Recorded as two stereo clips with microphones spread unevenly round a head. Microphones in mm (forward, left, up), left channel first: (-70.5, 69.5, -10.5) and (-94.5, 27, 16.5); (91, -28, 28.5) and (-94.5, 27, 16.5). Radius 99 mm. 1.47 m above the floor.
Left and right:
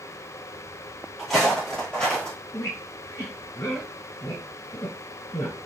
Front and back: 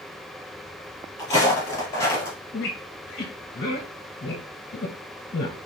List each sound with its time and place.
1.2 s footsteps: 70° right, 1.8 m; by 2.4 s 60° right, 1.5 m
2.5 s a squeak: 10° left, 1.0 m